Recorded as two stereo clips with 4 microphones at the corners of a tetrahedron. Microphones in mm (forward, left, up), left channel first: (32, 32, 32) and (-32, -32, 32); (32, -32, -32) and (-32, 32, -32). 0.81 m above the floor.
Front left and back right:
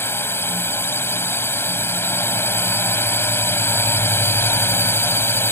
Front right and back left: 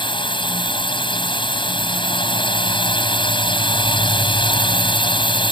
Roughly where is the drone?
Ahead.